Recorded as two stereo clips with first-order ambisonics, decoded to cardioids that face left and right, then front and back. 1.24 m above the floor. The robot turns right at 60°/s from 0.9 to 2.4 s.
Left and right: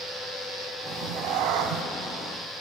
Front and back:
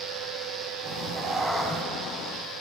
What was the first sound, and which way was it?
A cat meowing, 130° right.